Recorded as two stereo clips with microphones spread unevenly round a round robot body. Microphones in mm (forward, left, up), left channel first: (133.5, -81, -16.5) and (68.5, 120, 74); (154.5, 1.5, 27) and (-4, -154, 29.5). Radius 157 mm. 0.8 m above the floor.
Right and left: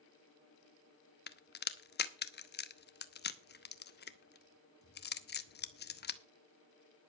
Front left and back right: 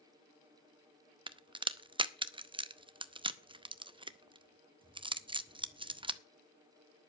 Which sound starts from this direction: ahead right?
A crack, at 1.3 s.